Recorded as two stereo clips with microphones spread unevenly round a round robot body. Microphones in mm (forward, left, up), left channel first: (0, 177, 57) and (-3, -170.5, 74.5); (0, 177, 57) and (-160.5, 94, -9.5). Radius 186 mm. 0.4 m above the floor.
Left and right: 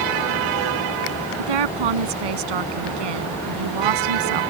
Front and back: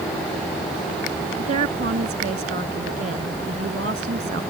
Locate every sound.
1.4 s a woman speaking: 95° right